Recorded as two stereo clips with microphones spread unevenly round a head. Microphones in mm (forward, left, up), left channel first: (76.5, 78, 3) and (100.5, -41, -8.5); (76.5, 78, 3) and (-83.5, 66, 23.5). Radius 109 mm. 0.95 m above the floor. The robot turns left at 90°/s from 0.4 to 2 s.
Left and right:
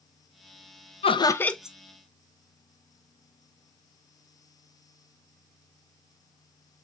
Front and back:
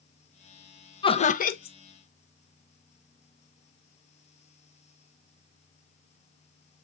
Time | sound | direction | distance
1.0 | laughter | 60° left | 0.7 m